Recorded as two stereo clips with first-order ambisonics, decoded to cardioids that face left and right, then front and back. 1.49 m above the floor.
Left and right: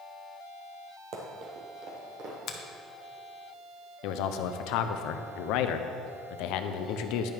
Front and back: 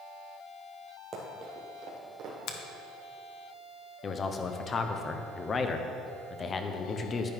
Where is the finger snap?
40° left, 1.1 m.